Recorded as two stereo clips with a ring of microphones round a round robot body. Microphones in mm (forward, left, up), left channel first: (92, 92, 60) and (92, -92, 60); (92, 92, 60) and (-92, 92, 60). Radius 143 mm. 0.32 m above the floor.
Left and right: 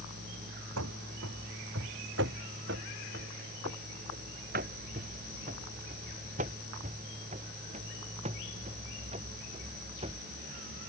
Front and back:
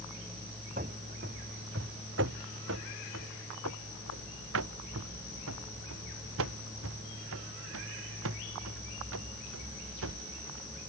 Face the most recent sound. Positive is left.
turn(degrees=-160)